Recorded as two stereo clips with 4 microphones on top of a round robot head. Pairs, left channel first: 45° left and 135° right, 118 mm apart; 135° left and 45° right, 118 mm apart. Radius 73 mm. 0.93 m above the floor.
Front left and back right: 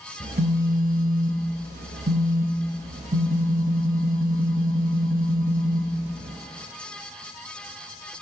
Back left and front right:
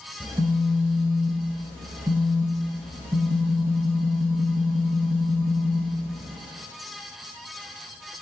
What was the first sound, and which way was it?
A phone buzzing, 115° right.